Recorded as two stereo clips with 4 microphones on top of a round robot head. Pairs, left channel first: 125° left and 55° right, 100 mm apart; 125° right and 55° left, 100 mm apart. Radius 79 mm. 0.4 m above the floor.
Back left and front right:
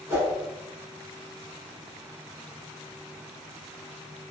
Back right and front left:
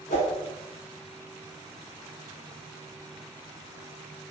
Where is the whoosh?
120° right, 0.9 m.